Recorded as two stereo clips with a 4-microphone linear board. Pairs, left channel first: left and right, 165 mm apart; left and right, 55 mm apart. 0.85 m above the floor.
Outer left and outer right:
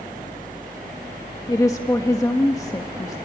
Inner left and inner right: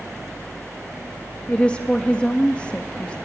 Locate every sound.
1.5 s a woman speaking: 20° left (ahead or behind), 1.4 m